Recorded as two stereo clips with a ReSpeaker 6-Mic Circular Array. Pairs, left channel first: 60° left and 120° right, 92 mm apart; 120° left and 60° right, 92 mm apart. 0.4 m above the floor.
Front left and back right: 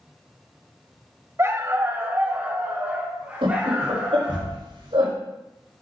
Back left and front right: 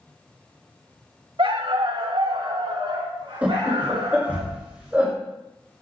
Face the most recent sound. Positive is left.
turn(degrees=-135)